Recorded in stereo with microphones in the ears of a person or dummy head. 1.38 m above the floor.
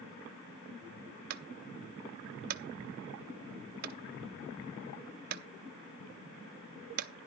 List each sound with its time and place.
1.3 s a clunk: 45° right (ahead or behind), 0.8 m